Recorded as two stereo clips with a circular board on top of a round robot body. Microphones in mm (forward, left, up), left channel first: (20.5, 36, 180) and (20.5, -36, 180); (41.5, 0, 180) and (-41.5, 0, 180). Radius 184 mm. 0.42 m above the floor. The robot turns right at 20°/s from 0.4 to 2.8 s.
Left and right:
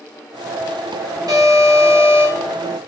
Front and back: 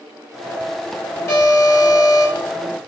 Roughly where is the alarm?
Ahead right.